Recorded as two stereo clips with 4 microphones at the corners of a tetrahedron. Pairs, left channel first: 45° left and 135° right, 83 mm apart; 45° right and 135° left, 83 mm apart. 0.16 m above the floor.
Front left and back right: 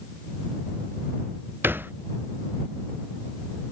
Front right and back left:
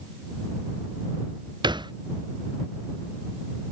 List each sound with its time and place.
1.6 s a thud: 160° left